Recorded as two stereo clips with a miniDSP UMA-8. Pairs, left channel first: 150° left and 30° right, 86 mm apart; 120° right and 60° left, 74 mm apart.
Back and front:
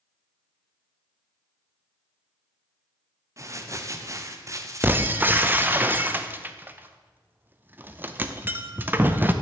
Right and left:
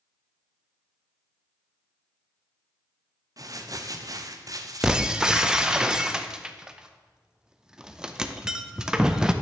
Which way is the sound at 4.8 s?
10° right.